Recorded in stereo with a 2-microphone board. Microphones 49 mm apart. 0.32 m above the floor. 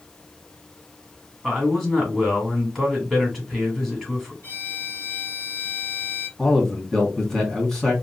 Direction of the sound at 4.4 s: 35° left (ahead or behind).